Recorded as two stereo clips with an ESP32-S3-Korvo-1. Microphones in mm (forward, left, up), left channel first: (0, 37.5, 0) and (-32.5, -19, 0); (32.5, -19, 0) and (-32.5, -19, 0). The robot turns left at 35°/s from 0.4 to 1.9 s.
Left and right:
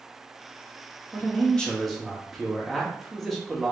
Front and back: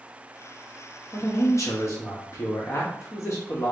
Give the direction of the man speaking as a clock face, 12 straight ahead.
12 o'clock.